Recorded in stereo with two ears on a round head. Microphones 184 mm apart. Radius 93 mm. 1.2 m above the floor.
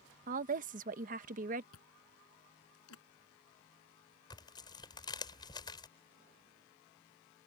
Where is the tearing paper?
20° left (ahead or behind).